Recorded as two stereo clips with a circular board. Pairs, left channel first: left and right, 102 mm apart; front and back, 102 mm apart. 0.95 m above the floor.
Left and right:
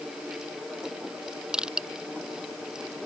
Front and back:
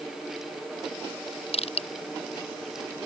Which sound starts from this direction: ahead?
Crushing, at 1.5 s.